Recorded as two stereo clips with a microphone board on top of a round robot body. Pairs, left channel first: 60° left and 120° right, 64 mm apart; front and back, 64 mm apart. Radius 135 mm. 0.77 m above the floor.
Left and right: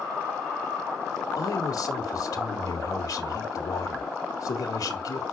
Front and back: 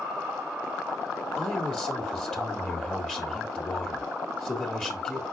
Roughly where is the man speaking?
Left.